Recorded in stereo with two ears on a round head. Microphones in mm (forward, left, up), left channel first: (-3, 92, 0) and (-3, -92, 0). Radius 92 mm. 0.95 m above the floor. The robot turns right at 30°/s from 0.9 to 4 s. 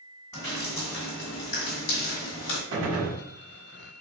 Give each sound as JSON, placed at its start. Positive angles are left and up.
{"t": 0.3, "sound": "dripping", "side_deg": 15, "distance_m": 2.0}
{"t": 2.7, "sound": "a gunshot", "side_deg": -70, "distance_m": 1.4}